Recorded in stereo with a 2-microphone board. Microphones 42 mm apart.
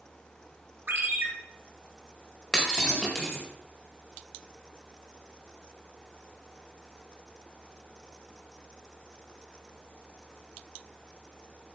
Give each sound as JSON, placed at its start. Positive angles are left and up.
{"t": 0.9, "sound": "a ringtone", "side_deg": -65, "distance_m": 4.0}
{"t": 2.5, "sound": "breaking glass", "side_deg": 15, "distance_m": 5.0}